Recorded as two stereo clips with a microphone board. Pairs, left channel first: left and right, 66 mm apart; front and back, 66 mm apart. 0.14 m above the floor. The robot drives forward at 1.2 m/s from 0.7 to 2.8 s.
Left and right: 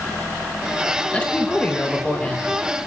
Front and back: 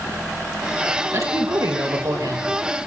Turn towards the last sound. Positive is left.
turn(degrees=165)